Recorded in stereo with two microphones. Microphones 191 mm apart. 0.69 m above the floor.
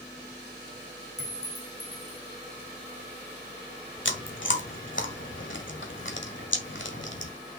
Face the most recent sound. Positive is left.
turn(degrees=85)